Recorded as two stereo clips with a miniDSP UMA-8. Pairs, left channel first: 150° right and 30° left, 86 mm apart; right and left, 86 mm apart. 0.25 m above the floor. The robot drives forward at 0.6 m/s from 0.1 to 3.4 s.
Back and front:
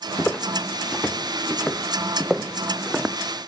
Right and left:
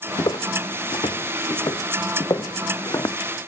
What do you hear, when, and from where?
0.2 s footsteps: 75° right, 1.0 m; by 3.2 s 50° right, 0.6 m